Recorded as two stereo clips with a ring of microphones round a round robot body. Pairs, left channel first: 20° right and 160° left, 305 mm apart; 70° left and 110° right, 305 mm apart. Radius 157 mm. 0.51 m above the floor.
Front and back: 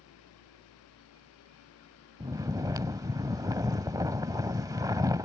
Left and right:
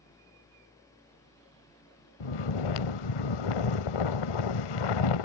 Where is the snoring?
80° left.